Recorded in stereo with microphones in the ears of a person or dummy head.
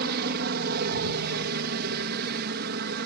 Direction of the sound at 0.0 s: 55° right (ahead or behind).